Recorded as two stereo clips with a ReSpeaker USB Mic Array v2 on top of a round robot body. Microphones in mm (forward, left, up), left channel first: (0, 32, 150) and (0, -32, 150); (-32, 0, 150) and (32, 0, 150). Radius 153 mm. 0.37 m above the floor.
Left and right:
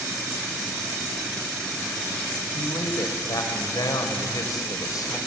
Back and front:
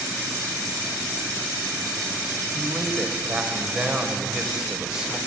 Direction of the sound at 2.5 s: 80° left.